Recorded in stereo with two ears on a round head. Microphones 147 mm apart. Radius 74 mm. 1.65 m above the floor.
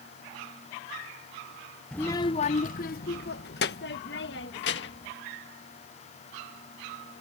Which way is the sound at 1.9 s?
5° left (ahead or behind).